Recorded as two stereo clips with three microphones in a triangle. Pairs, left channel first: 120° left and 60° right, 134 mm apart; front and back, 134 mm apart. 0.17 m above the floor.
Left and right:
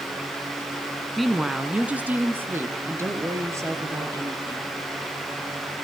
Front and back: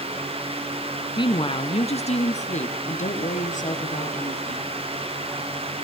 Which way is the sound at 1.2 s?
30° left.